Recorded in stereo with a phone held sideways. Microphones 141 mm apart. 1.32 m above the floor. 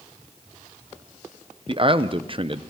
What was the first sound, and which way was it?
A man speaking, 40° right (ahead or behind).